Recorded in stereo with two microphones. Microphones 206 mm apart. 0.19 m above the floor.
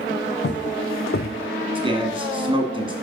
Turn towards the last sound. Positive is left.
turn(degrees=-25)  # may be behind; listen again after turning